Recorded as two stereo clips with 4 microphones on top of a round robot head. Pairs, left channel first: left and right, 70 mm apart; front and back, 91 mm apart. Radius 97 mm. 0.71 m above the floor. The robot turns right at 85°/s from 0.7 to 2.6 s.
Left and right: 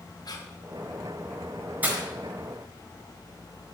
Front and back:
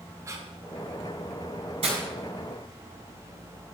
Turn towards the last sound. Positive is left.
turn(degrees=-90)